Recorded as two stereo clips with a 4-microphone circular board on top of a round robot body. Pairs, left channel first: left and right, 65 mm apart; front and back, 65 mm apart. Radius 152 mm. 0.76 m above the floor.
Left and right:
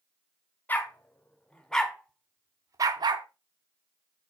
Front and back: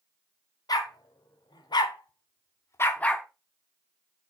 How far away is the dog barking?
About 1.7 m.